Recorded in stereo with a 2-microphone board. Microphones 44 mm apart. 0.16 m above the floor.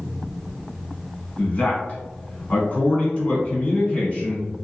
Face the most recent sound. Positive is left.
turn(degrees=30)  # may be behind; listen again after turning